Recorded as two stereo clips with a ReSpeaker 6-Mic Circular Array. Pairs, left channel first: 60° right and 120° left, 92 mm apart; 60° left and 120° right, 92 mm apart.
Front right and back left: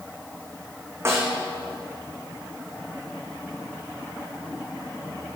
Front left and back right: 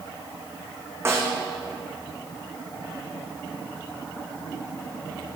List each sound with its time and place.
1.1 s a snare drum: straight behind, 2 m